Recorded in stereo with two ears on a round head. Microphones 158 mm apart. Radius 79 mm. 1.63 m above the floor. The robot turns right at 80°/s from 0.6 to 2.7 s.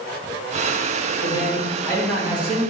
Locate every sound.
1.2 s a man speaking: 115° left, 2 m; by 2.6 s 135° right, 2 m